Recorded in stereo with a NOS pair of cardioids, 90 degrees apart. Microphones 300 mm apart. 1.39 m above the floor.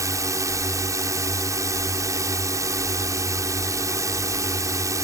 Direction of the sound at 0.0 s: 10° right.